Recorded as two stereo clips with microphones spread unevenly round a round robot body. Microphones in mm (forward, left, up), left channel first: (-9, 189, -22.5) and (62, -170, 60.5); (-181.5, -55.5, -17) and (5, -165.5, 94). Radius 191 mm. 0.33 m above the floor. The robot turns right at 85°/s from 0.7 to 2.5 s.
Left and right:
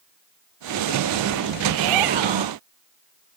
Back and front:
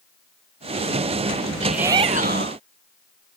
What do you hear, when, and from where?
1.6 s a shout: 125° right; by 2.6 s 55° right